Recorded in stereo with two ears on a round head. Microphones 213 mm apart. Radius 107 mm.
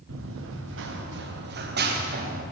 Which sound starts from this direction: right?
Running footsteps, at 0.1 s.